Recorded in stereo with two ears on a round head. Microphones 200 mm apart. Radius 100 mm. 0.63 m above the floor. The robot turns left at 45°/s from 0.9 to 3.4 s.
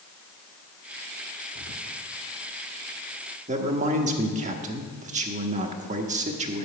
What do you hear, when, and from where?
1.6 s whispering: 40° left (ahead or behind), 0.9 m; by 2.0 s 50° left (ahead or behind), 0.9 m
3.5 s a man speaking: 35° right (ahead or behind), 1.0 m